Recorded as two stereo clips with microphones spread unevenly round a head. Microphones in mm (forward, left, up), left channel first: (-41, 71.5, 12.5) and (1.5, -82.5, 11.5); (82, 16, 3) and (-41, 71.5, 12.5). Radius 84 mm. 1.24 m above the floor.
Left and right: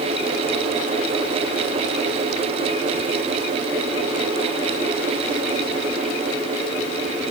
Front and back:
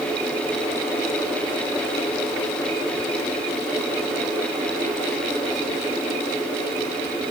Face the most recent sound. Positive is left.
No sound to turn to.